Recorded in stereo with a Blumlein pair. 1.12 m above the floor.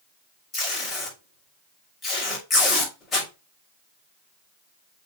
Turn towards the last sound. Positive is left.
turn(degrees=20)